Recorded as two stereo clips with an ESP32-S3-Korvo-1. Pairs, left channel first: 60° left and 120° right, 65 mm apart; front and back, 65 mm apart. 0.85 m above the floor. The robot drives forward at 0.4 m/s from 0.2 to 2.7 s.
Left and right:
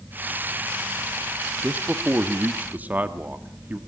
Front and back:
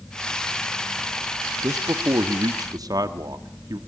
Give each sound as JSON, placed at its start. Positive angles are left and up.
{"t": 1.6, "sound": "a man speaking", "azimuth_deg": 175, "distance_m": 1.0}